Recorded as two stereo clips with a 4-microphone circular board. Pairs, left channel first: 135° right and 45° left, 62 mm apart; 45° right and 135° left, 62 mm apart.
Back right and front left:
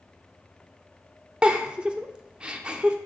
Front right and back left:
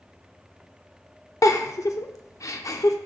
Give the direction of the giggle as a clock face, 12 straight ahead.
1 o'clock.